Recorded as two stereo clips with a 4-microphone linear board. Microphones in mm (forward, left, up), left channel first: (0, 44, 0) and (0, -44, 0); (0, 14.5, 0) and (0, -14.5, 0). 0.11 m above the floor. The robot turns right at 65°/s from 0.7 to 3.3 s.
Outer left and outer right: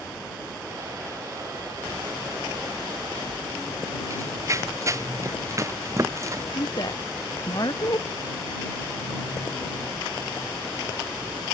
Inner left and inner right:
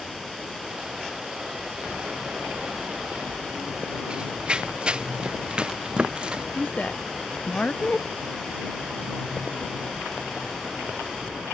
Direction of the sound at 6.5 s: 50° left (ahead or behind).